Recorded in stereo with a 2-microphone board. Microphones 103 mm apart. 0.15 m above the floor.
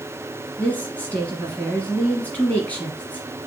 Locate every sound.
0.6 s a woman speaking: 15° left (ahead or behind), 1.6 m